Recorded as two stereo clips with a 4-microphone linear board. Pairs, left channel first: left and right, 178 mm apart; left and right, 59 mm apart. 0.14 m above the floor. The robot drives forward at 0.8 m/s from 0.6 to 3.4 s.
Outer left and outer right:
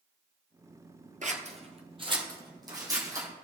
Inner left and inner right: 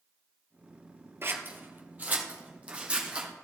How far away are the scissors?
About 1.0 m.